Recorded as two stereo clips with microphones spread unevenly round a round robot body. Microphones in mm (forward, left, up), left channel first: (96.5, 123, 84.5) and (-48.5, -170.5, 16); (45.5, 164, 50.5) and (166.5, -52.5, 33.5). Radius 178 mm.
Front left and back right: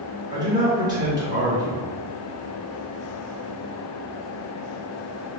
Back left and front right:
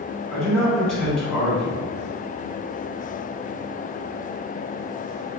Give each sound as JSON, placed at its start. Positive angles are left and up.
{"t": 0.3, "sound": "a man speaking", "azimuth_deg": -150, "distance_m": 1.2}